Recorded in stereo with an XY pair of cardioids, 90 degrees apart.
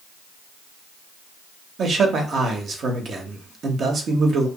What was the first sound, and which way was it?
A man speaking, 60° right.